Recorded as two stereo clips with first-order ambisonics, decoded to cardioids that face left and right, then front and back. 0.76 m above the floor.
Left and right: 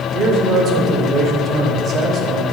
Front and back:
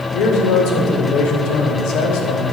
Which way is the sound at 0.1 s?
30° right.